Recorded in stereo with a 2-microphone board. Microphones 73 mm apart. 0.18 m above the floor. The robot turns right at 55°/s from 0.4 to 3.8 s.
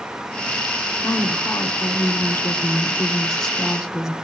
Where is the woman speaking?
45° left, 1.6 m; by 4.1 s 165° right, 1.6 m.